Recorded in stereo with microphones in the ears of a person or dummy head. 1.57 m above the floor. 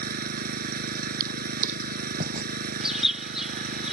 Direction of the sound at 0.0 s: 55° right (ahead or behind).